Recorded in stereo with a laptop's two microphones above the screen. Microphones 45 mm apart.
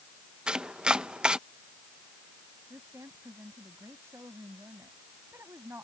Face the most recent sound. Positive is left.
turn(degrees=-75)  # may be behind; listen again after turning